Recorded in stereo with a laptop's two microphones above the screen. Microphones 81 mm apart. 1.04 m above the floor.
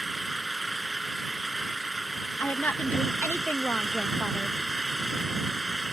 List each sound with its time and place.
0.0 s an engine running: centre (ahead or behind)
2.4 s a woman speaking: 20° left (ahead or behind)